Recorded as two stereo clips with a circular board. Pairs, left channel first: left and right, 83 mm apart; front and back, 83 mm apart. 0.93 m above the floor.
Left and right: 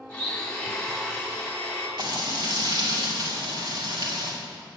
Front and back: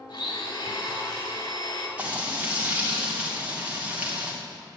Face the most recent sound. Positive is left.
turn(degrees=-110)